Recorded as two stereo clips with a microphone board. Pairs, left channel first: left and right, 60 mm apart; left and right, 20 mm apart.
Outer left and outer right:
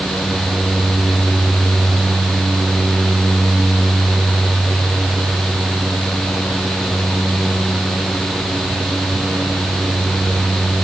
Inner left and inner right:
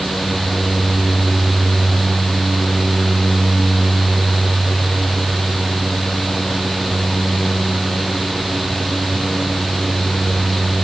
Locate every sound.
Only background noise.